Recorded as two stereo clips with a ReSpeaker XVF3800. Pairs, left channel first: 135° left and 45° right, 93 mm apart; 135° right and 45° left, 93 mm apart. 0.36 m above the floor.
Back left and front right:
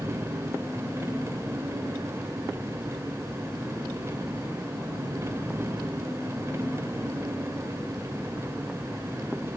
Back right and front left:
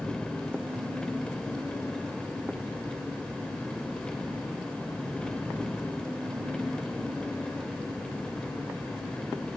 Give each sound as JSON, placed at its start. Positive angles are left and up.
{"t": 0.0, "sound": "an engine running", "azimuth_deg": -65, "distance_m": 1.2}